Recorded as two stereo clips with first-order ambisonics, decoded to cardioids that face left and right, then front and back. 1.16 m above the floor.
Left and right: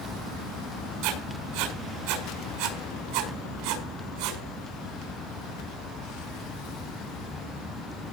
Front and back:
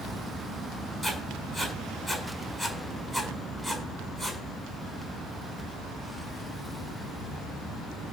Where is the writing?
100° right, 6 m.